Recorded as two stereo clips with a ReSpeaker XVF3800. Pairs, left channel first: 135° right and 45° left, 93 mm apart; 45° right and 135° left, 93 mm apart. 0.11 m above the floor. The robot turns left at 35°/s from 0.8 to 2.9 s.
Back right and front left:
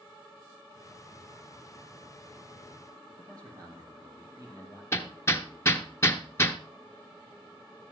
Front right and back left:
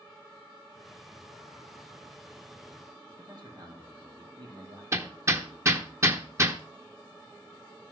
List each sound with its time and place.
3.2 s a man speaking: 95° left, 4.5 m
4.9 s hammering: 175° left, 1.1 m